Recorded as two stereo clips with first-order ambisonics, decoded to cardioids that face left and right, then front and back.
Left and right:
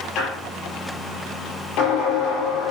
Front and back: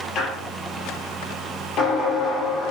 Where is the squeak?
50° left, 4.5 m.